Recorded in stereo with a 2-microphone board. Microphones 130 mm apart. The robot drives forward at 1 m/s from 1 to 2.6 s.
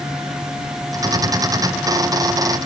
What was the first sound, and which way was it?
Only background noise.